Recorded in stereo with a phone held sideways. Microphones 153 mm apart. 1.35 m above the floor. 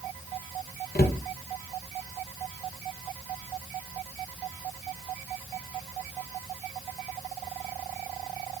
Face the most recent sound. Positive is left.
turn(degrees=75)  # may be behind; listen again after turning